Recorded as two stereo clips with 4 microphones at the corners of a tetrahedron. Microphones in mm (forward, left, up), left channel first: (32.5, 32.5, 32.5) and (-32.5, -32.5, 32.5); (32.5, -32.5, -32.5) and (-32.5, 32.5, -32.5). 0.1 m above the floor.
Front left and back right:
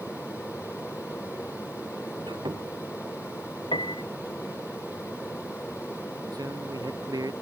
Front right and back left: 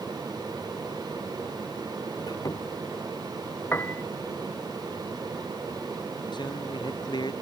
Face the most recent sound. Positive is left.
turn(degrees=-85)